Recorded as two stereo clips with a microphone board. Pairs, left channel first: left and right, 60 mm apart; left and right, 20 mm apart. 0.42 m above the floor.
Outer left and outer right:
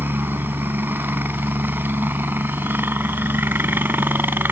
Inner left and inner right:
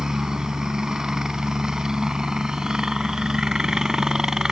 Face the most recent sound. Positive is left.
turn(degrees=-35)  # may be behind; listen again after turning